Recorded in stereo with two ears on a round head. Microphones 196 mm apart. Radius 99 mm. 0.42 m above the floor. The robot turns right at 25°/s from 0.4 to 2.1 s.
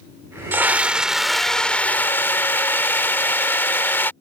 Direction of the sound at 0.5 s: 20° right.